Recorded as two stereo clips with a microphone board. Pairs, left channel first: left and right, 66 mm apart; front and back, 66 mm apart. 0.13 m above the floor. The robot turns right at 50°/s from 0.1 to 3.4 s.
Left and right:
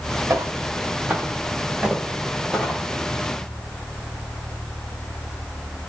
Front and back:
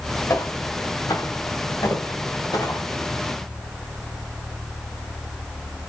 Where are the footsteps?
45° right, 1.5 m; by 2.9 s 15° left, 1.7 m.